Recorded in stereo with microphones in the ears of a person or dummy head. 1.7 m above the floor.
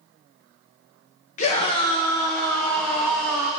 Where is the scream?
45° left (ahead or behind), 1.3 m; by 3.5 s centre (ahead or behind), 2 m.